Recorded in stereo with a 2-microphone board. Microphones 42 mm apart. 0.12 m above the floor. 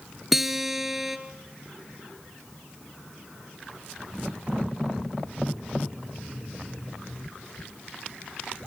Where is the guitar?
5° right (ahead or behind), 1.7 m.